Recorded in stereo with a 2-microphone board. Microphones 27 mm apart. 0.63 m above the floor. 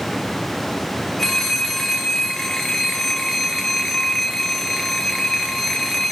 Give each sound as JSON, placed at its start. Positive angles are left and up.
{"t": 1.2, "sound": "a phone ringing", "side_deg": 10, "distance_m": 1.3}